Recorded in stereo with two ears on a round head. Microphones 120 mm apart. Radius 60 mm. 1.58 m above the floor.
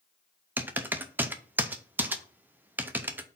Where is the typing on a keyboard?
15° right (ahead or behind), 0.6 m.